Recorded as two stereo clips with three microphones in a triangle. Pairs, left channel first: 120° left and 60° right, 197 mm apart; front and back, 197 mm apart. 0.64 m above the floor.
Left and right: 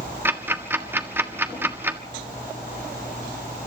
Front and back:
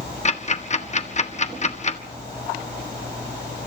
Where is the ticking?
10° left, 1.4 m.